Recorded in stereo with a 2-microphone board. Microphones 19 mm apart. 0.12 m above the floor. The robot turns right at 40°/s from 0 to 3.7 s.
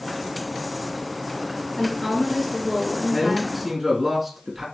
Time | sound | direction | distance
1.8 | a woman speaking | 155° left | 1.4 m
3.1 | a man speaking | centre (ahead or behind) | 1.2 m